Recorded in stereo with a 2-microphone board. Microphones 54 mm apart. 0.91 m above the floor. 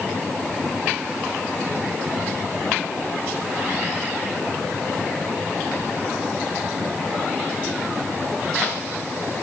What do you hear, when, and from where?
Only background noise.